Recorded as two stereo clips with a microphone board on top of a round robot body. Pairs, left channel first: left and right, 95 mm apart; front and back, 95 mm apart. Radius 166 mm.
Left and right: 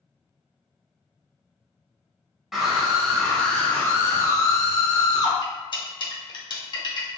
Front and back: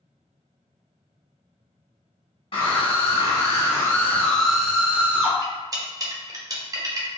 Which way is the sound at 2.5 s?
5° right.